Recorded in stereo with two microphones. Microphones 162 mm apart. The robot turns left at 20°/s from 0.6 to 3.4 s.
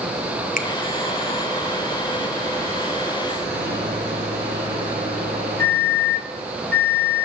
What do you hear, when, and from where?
0.6 s a finger snap: 55° left (ahead or behind), 0.9 m
3.5 s a microwave: 75° right (ahead or behind), 3.5 m